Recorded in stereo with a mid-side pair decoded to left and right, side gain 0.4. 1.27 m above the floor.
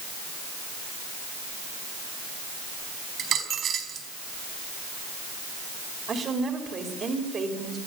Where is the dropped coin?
60° right, 4.5 m.